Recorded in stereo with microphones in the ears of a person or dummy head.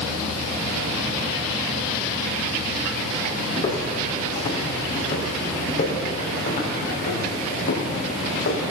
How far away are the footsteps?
About 3.5 m.